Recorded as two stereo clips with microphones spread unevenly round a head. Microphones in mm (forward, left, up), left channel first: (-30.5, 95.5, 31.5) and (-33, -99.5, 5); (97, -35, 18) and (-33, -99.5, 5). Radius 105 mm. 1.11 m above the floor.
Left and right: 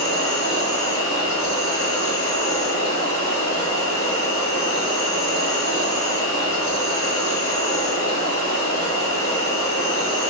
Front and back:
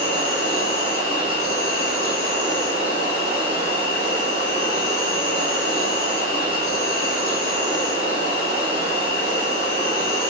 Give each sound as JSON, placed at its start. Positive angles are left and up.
{"t": 0.0, "sound": "an insect", "azimuth_deg": 50, "distance_m": 0.7}